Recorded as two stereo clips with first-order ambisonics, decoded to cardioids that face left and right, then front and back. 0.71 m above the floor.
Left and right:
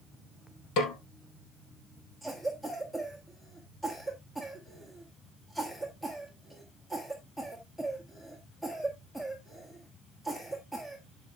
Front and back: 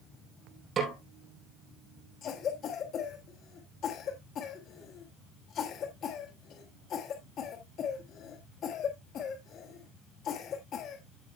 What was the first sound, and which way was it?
A snare drum, 115° left.